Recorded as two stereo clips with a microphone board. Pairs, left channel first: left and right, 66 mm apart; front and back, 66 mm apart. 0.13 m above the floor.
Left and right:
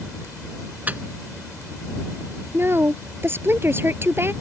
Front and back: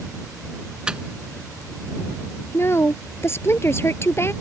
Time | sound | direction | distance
0.9 | a microwave | 120° right | ?
2.5 | a woman speaking | 40° right | ?